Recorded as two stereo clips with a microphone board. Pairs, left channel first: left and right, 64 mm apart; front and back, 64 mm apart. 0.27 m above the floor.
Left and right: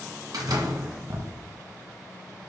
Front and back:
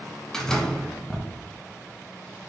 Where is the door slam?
80° right, 1.6 m.